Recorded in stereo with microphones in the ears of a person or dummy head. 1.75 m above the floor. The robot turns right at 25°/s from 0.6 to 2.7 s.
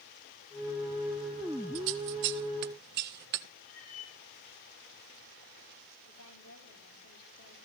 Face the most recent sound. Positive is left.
turn(degrees=80)